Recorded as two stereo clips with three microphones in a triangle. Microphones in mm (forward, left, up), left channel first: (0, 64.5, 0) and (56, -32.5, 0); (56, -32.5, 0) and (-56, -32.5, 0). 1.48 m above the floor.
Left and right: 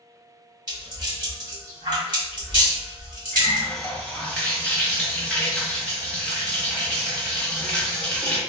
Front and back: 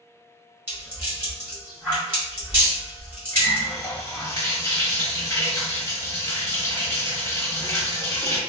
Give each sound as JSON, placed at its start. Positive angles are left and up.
{"t": 0.7, "sound": "a rattle", "azimuth_deg": -110, "distance_m": 1.8}
{"t": 3.3, "sound": "a running tap", "azimuth_deg": 45, "distance_m": 0.8}